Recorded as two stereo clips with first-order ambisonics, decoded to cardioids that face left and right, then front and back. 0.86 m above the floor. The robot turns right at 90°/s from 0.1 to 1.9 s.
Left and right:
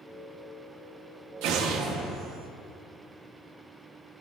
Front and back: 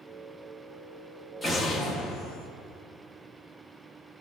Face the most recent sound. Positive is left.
turn(degrees=-30)